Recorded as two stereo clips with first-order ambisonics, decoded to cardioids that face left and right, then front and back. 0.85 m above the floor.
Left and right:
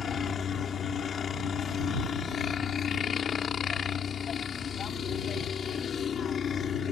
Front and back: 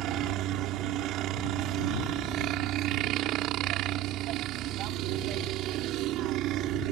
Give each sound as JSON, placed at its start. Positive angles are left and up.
{"t": 0.0, "sound": "a helicopter", "azimuth_deg": 150}